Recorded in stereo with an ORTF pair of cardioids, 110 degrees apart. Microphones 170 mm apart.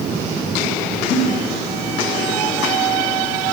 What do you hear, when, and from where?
1.1 s a giggle: 55° left, 2.5 m